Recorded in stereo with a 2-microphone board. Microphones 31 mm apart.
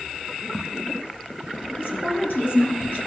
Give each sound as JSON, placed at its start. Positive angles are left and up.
{"t": 1.7, "sound": "a woman speaking", "side_deg": 70, "distance_m": 3.5}